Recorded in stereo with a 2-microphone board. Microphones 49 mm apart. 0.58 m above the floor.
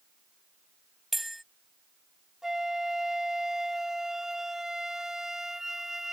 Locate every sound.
1.1 s a bell: centre (ahead or behind)
2.4 s a flute: 10° right (ahead or behind)